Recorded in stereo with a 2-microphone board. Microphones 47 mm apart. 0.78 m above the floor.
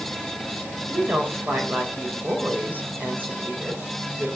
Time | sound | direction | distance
0.9 | a woman speaking | 40° right (ahead or behind) | 3 m